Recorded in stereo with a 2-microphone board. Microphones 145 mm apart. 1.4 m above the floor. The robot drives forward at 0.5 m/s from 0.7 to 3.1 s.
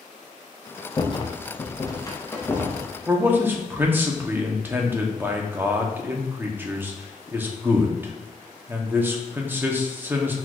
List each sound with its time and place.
1.0 s a rattle: 30° left (ahead or behind), 0.6 m; by 3.0 s 15° left (ahead or behind), 1.1 m
3.1 s a man speaking: 15° right (ahead or behind), 0.8 m